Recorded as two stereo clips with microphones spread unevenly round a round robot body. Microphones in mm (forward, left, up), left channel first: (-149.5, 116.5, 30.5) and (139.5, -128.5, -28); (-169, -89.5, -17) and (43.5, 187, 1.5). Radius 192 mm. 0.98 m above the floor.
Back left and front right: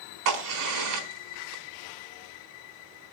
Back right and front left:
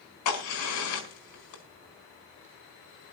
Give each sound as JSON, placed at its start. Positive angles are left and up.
{"t": 0.2, "sound": "a crack", "azimuth_deg": -80, "distance_m": 4.5}